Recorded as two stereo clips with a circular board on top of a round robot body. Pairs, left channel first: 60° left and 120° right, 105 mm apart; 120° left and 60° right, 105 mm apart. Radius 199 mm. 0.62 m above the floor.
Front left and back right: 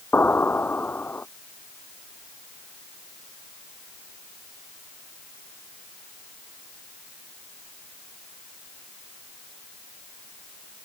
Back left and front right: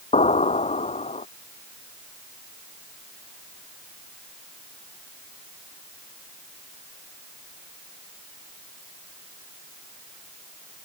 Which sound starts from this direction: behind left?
An explosion, at 0.1 s.